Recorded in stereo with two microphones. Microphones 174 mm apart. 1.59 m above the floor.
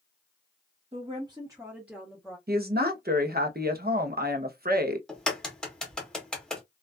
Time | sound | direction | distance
0.9 | a woman speaking | 40° right (ahead or behind) | 0.7 m
2.5 | a woman speaking | 65° right (ahead or behind) | 0.7 m
5.1 | a crack | 5° left (ahead or behind) | 0.8 m